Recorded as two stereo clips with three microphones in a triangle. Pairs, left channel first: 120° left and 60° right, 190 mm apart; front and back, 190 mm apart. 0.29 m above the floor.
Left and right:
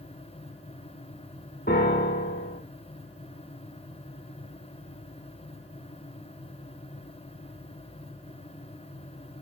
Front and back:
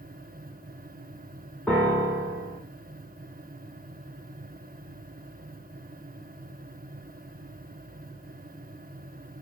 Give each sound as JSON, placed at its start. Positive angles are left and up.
{"t": 1.7, "sound": "a piano", "azimuth_deg": 85, "distance_m": 2.5}